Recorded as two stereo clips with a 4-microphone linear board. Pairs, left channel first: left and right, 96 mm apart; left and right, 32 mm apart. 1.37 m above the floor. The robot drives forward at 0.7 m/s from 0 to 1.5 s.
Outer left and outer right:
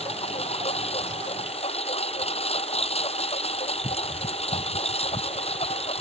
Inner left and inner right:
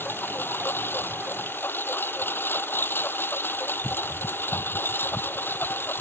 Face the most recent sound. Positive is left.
turn(degrees=85)